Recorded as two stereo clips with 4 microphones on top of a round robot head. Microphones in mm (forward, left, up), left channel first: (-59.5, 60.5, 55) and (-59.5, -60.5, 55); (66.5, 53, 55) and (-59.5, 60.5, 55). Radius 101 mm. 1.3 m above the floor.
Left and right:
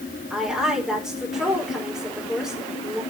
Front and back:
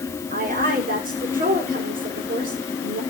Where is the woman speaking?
175° right, 5 m.